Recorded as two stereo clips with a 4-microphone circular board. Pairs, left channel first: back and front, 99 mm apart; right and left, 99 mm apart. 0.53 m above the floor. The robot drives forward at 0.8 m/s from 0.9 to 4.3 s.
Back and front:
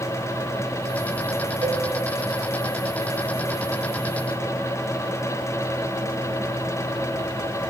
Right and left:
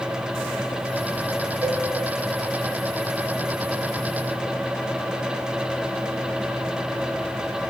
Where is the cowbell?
35° left, 0.6 m; by 1.9 s 50° left, 0.5 m.